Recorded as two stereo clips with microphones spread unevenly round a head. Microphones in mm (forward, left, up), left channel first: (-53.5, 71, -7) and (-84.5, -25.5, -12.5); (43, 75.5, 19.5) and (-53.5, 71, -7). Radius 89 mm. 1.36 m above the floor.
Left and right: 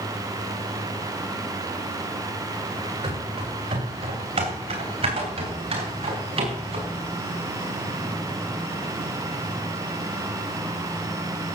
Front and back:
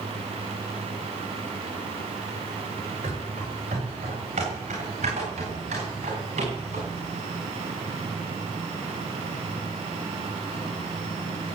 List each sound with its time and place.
3.0 s running footsteps: 115° right, 9 m; by 6.9 s 120° right, 10.5 m